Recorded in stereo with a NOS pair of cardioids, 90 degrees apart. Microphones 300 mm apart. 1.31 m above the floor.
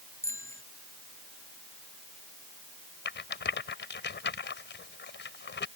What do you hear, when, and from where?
0.2 s a bicycle bell: 10° left
3.0 s a rattle: 35° left